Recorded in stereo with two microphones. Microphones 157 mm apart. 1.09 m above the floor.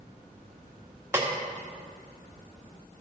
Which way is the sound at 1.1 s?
15° right (ahead or behind).